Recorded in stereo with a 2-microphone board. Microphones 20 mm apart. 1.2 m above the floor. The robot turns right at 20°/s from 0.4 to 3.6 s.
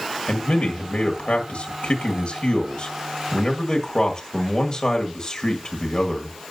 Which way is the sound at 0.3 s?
85° left.